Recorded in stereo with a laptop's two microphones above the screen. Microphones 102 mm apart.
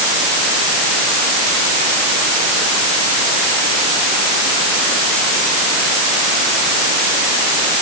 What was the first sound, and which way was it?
Only background noise.